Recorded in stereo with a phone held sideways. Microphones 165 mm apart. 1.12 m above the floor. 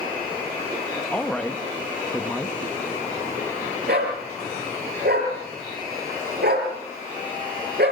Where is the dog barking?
80° right, 6 m.